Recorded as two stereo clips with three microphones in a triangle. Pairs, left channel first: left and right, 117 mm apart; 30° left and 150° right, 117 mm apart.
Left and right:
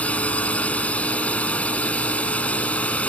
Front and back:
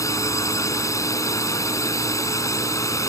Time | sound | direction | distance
0.0 | a drone | 25° left | ?